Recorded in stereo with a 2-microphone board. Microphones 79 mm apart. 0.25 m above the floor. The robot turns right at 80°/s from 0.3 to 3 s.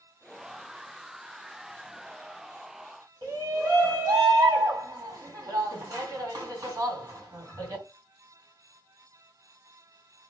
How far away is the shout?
About 2.5 m.